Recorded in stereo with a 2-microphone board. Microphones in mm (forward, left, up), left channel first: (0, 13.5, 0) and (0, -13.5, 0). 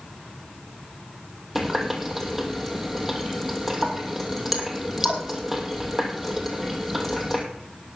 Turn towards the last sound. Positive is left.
turn(degrees=-15)  # may be behind; listen again after turning